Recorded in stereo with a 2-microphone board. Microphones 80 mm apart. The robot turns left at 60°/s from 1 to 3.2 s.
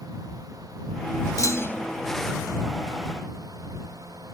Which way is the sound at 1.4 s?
45° left (ahead or behind).